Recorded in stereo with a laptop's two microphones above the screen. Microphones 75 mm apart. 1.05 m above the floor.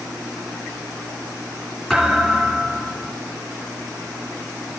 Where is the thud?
10° left (ahead or behind), 3 m.